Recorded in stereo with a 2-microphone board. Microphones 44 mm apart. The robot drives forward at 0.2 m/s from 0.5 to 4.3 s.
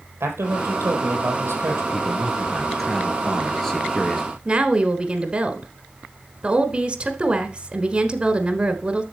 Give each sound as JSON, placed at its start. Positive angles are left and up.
{"t": 0.2, "sound": "a man speaking", "side_deg": -70, "distance_m": 3.5}
{"t": 1.9, "sound": "a man speaking", "side_deg": 10, "distance_m": 2.0}
{"t": 4.5, "sound": "a woman speaking", "side_deg": -25, "distance_m": 1.2}